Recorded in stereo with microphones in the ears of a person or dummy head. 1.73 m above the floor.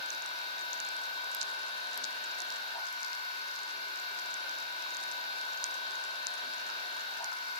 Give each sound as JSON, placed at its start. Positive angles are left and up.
{"t": 0.0, "sound": "a machine running", "side_deg": 35, "distance_m": 2.5}